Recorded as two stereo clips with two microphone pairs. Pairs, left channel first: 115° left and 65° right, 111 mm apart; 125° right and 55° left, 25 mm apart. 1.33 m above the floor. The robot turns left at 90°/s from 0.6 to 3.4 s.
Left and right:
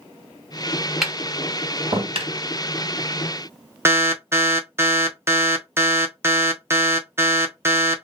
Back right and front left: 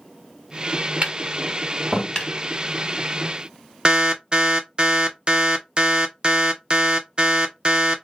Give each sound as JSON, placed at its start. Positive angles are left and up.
{"t": 1.0, "sound": "tapping", "azimuth_deg": 25, "distance_m": 1.9}
{"t": 3.9, "sound": "an alarm", "azimuth_deg": 5, "distance_m": 0.6}